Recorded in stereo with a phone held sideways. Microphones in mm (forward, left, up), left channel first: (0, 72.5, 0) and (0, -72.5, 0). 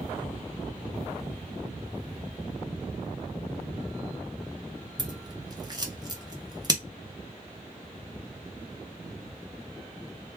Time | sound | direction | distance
5.0 | scissors | 30° right (ahead or behind) | 0.7 m